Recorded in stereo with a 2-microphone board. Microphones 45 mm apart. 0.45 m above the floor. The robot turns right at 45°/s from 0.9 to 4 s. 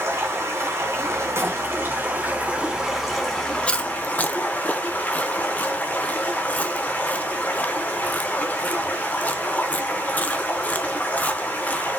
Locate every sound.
0.0 s running water: 100° right, 3 m; by 12.0 s 35° left, 3 m
1.4 s a door slam: 65° right (ahead or behind), 2.5 m; by 1.6 s 55° right (ahead or behind), 2.5 m
3.7 s chewing: 25° left (ahead or behind), 0.8 m; by 11.9 s 35° left (ahead or behind), 0.8 m